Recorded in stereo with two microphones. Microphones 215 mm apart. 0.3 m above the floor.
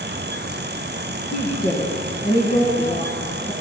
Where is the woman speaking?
50° left (ahead or behind), 2.5 m.